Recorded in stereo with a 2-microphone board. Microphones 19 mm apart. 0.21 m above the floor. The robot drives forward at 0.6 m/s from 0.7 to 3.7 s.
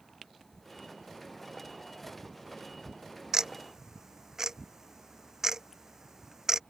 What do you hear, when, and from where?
3.3 s ticking: 40° right (ahead or behind); by 6.6 s 35° right (ahead or behind)